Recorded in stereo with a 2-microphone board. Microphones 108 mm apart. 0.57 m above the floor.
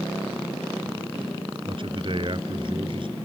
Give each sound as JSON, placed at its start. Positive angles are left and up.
{"t": 1.7, "sound": "a man speaking", "side_deg": -50}